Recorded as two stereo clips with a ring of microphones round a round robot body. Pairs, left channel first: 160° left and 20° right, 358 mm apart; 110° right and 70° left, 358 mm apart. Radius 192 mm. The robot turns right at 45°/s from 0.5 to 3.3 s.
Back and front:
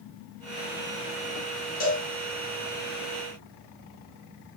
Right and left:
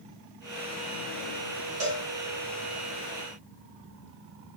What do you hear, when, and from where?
1.8 s a cowbell: 90° left, 4.5 m; by 2.0 s 100° left, 4.5 m